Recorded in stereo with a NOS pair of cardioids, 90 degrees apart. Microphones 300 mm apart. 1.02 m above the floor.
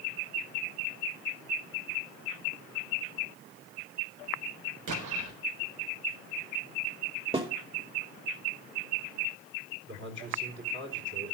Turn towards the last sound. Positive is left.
turn(degrees=-40)